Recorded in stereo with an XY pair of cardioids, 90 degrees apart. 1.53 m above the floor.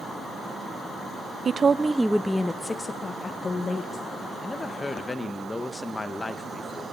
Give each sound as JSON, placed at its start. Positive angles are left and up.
{"t": 1.4, "sound": "a woman speaking", "azimuth_deg": -50, "distance_m": 0.6}
{"t": 4.4, "sound": "a woman speaking", "azimuth_deg": 25, "distance_m": 1.3}